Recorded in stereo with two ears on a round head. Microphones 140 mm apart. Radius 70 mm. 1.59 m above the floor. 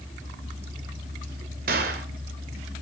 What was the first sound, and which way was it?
A gunshot, 65° right (ahead or behind).